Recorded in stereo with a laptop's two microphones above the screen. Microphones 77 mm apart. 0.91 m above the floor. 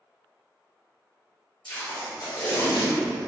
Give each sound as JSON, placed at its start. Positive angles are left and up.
{"t": 1.6, "sound": "tape being pulled", "side_deg": 75, "distance_m": 1.5}